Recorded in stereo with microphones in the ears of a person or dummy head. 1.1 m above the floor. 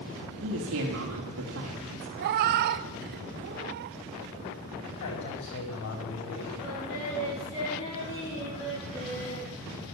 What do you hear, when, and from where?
0.4 s a woman speaking: 80° right, 2 m
2.2 s a cat meowing: 40° right (ahead or behind), 0.5 m
4.8 s a man speaking: 70° left (ahead or behind), 5 m
6.6 s singing: 30° left (ahead or behind), 9.5 m